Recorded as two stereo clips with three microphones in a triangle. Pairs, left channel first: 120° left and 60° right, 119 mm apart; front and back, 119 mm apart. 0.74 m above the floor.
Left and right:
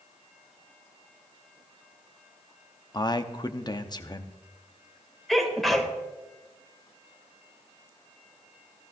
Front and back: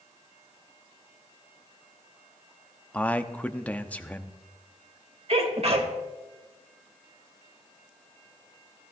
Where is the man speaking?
75° left, 0.9 m.